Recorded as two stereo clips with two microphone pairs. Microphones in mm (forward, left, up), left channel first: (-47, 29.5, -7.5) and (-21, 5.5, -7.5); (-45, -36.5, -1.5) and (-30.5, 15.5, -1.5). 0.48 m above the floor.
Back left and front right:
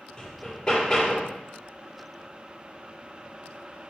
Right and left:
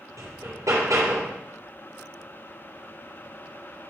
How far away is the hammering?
About 7 m.